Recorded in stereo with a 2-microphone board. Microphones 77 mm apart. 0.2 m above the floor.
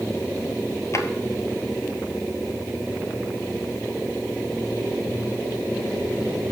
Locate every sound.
0.9 s a drawer: 40° left (ahead or behind), 1.3 m